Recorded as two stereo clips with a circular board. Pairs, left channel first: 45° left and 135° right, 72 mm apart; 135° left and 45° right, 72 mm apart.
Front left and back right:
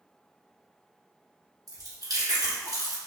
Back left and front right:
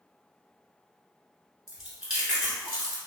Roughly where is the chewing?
Behind right.